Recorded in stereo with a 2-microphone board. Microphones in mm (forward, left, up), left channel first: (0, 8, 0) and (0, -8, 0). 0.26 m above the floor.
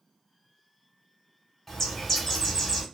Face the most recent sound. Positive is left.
turn(degrees=30)  # may be behind; listen again after turning